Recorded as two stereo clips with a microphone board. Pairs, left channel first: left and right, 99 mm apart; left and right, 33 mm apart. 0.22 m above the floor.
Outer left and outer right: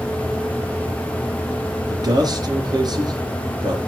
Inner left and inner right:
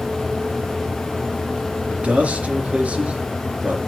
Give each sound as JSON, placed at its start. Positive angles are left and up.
{"t": 1.9, "sound": "a man speaking", "side_deg": -45, "distance_m": 3.0}